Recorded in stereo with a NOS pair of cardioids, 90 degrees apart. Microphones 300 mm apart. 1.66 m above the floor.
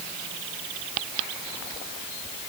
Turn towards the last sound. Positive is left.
No sound to turn to.